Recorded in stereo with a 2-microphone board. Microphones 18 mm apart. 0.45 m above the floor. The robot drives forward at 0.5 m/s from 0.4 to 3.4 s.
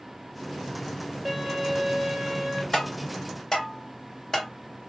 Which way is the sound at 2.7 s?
40° left (ahead or behind).